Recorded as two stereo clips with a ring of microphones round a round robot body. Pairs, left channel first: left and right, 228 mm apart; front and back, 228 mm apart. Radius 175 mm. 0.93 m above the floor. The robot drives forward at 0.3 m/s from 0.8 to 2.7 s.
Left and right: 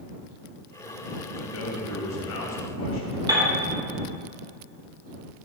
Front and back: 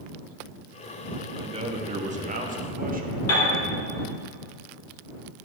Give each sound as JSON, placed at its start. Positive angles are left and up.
{"t": 1.4, "sound": "a man speaking", "azimuth_deg": 110, "distance_m": 1.5}
{"t": 3.3, "sound": "a piano", "azimuth_deg": -20, "distance_m": 4.0}